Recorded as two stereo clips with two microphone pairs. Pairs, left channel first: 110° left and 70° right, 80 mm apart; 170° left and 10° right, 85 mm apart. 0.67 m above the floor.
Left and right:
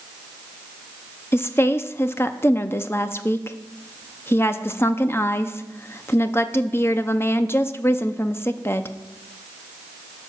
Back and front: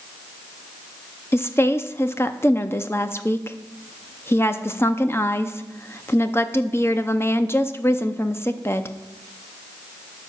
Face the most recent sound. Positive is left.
turn(degrees=140)